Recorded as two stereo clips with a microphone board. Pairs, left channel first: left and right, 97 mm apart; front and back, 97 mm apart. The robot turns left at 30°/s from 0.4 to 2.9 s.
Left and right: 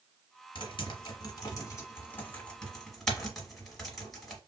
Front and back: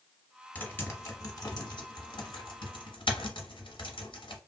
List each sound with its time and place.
0.6 s typing on a keyboard: 75° left, 1.1 m; by 4.4 s straight ahead, 1.1 m